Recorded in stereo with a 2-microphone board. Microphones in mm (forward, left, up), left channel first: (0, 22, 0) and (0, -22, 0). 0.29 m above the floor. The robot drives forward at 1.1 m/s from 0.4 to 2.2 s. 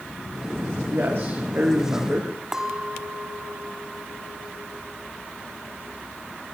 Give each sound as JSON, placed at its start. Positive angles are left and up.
{"t": 0.8, "sound": "a man speaking", "side_deg": -50, "distance_m": 4.5}
{"t": 2.5, "sound": "a clink", "side_deg": -10, "distance_m": 1.6}